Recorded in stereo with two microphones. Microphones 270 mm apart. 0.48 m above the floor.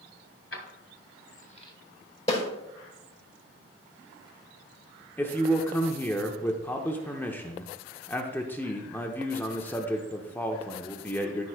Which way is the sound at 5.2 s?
5° left (ahead or behind).